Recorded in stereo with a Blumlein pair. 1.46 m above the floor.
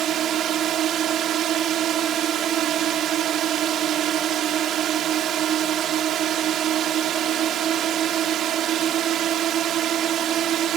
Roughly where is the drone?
Ahead right.